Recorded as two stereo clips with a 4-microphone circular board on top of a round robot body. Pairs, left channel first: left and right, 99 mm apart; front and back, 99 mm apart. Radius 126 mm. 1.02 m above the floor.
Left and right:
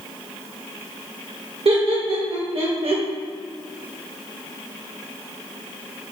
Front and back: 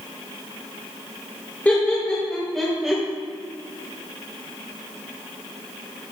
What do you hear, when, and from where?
1.6 s laughter: 75° right, 1.9 m; by 3.0 s 95° right, 1.4 m